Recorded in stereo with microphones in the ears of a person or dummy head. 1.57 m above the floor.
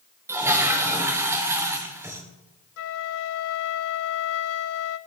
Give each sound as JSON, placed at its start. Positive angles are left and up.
{"t": 0.3, "sound": "a toilet flushing", "side_deg": -10, "distance_m": 1.1}
{"t": 2.8, "sound": "a flute", "side_deg": 80, "distance_m": 0.6}